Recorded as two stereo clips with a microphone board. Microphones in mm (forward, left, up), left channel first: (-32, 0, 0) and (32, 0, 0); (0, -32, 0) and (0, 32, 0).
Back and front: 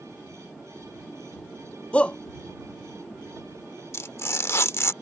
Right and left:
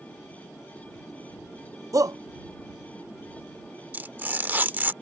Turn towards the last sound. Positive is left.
turn(degrees=145)